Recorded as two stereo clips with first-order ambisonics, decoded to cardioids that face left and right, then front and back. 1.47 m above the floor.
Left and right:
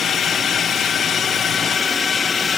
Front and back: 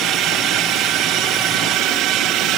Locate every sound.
0.0 s a drone: 150° left; by 2.6 s 155° left